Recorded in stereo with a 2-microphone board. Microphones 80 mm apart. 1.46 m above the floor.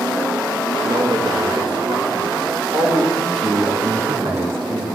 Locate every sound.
0.8 s a man speaking: 60° right (ahead or behind), 2.5 m
3.1 s a man speaking: 80° right, 2.5 m